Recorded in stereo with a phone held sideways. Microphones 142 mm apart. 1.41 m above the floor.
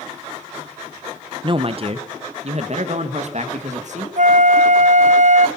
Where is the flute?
60° right (ahead or behind), 0.5 m.